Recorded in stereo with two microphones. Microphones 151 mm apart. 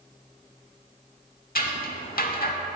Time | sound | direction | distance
1.6 | scissors | 70° left (ahead or behind) | 0.6 m